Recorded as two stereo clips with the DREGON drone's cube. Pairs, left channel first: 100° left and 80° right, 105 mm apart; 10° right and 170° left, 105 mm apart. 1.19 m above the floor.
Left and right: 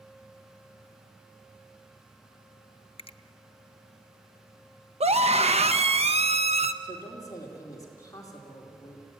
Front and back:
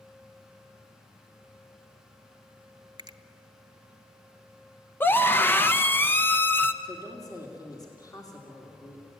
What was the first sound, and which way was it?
A finger snap, 125° left.